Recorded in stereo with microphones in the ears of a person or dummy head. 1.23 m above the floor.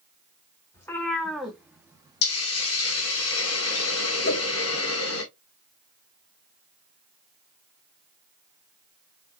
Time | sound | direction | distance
0.7 | a cat meowing | 20° left (ahead or behind) | 1.4 m
2.2 | a hiss | 75° left (ahead or behind) | 1.7 m
4.2 | a whoosh | 55° left (ahead or behind) | 0.9 m